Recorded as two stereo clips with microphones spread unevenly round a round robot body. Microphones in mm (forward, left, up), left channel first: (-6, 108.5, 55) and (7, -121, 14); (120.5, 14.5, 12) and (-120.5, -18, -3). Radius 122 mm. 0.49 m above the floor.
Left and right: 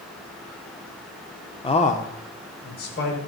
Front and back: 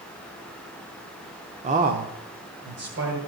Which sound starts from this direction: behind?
A man speaking, at 1.6 s.